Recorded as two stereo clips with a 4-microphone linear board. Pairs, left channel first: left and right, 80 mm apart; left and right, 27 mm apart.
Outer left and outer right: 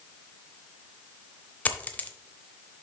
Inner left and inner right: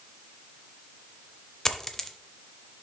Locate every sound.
1.6 s a dropped coin: 20° left (ahead or behind), 0.7 m